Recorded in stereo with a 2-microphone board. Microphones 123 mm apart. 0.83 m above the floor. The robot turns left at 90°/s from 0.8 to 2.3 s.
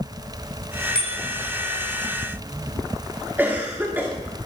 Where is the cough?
15° right (ahead or behind), 2 m.